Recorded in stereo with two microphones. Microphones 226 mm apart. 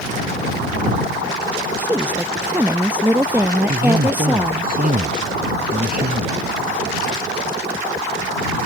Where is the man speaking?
40° right (ahead or behind).